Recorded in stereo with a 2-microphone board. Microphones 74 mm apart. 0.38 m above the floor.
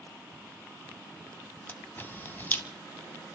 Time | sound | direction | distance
1.7 | a camera shutter | 25° left (ahead or behind) | 1.3 m